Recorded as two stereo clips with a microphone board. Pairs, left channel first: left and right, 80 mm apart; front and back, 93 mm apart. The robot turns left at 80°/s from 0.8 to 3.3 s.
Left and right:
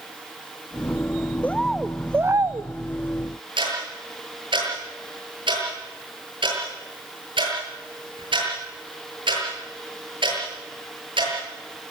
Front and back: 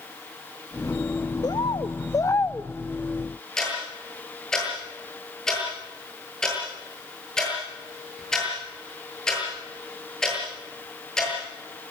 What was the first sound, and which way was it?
A bird, 25° left.